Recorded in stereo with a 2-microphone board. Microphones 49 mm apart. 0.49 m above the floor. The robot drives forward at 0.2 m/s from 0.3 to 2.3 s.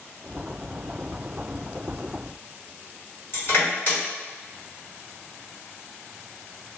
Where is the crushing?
50° left (ahead or behind), 1.7 m.